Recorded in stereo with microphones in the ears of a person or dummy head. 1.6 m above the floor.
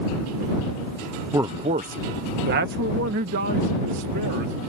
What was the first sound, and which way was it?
A man speaking, 10° right (ahead or behind).